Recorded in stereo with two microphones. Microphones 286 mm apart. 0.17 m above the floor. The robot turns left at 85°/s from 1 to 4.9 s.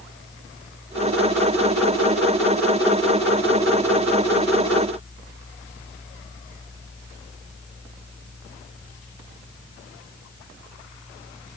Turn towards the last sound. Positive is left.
No sound to turn to.